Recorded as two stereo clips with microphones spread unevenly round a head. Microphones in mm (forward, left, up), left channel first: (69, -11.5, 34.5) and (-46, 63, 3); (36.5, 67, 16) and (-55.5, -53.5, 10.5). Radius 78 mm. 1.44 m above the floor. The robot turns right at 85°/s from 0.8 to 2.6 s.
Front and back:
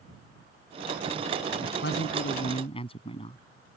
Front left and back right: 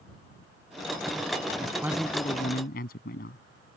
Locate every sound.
1.6 s a man speaking: 70° right; by 3.4 s 15° left